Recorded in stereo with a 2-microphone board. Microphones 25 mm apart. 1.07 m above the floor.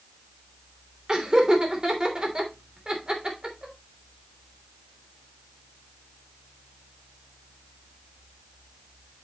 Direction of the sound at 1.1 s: 30° right (ahead or behind).